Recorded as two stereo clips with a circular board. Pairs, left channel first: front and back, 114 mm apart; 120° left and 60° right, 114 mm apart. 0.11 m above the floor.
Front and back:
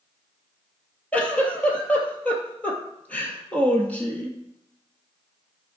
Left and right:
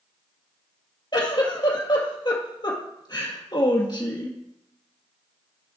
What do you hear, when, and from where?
1.1 s a giggle: 75° left, 2 m